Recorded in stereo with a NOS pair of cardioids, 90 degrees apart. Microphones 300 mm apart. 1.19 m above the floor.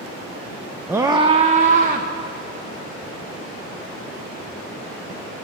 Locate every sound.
0.9 s a scream: 5° right, 0.5 m; by 2.1 s 30° right, 1.2 m